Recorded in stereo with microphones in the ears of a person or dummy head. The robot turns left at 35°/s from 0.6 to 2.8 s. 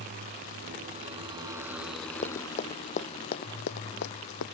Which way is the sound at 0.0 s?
135° right.